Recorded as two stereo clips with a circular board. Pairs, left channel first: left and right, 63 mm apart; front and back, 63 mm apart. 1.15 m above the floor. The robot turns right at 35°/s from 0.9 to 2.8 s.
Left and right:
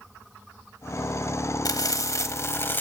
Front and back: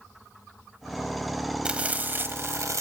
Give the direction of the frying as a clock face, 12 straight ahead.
8 o'clock.